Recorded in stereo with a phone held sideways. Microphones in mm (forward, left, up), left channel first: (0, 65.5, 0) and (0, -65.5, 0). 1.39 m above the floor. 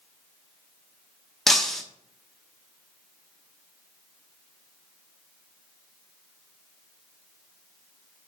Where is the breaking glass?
Centre (ahead or behind), 0.9 m.